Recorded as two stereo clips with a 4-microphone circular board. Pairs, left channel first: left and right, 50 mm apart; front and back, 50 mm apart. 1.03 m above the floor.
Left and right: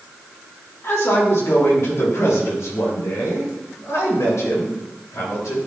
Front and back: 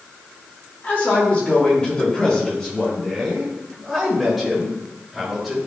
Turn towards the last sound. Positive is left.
turn(degrees=90)